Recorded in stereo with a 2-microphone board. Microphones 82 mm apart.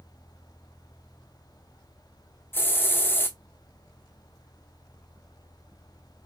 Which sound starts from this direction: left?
A hiss, at 2.5 s.